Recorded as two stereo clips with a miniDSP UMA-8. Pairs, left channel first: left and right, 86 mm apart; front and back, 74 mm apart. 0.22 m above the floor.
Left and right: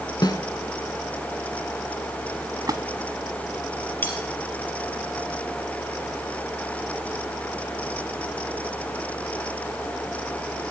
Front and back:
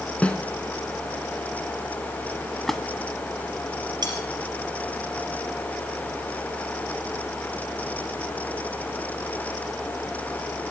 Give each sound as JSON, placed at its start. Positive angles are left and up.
{"t": 0.2, "sound": "a snare drum", "azimuth_deg": 70, "distance_m": 1.0}
{"t": 2.7, "sound": "a splash", "azimuth_deg": -85, "distance_m": 0.7}
{"t": 4.0, "sound": "cutlery clinking", "azimuth_deg": 160, "distance_m": 3.0}